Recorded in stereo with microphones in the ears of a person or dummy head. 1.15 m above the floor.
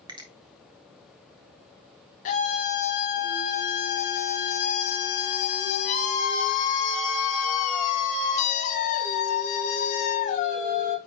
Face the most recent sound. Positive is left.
turn(degrees=40)  # may be behind; listen again after turning